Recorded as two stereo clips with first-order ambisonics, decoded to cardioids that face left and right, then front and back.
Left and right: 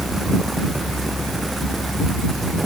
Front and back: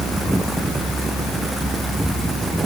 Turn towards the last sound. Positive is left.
No sound to turn to.